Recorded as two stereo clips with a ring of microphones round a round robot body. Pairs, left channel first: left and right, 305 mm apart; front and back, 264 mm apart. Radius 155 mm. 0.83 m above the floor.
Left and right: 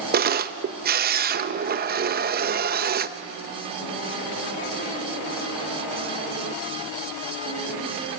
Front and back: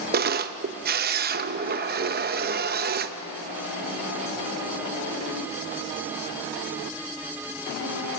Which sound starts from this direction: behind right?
A camera shutter, at 0.1 s.